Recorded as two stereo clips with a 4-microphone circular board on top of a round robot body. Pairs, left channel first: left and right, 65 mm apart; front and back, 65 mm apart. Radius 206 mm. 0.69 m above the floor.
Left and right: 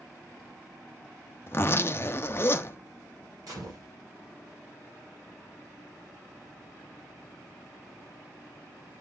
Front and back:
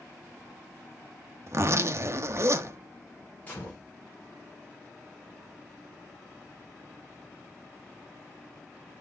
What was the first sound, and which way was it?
A zipper, 140° left.